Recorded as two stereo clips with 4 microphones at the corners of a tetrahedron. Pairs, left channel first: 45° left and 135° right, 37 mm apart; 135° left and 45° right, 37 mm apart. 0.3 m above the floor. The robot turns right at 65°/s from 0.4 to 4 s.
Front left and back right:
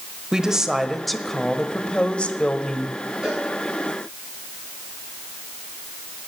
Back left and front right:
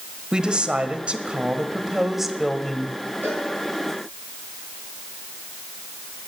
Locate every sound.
0.3 s a woman speaking: 85° right, 1.0 m; by 3.0 s 80° left, 1.0 m
3.2 s a cowbell: 70° right, 6 m; by 3.5 s 55° right, 6 m